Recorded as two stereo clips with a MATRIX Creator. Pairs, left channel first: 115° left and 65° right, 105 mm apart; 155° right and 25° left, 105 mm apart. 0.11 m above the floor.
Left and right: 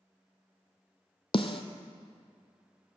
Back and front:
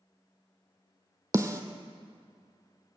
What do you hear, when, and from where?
1.3 s a snare drum: 80° left, 0.7 m